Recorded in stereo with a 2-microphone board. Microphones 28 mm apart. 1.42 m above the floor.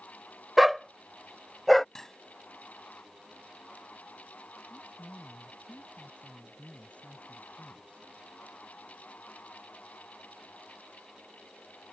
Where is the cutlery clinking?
15° left (ahead or behind).